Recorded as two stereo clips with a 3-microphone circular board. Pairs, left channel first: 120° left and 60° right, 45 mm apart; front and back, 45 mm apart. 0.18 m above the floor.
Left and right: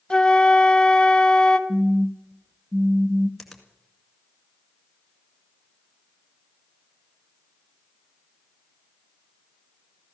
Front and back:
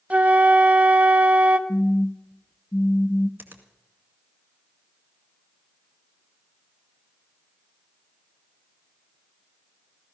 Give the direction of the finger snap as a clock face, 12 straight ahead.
5 o'clock.